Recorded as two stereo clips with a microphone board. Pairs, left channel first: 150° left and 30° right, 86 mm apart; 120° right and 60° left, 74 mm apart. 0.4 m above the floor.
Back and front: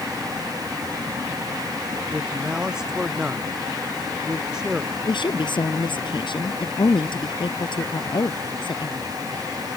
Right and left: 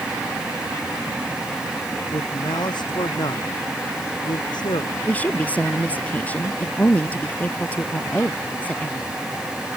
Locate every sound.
2.1 s a man speaking: 110° right
5.0 s a woman speaking: 170° left